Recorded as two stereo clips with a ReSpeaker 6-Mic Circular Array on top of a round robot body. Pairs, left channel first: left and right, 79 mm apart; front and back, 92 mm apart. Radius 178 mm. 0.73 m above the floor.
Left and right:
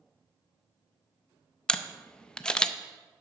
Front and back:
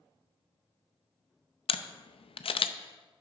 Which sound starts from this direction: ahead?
A camera shutter, at 1.7 s.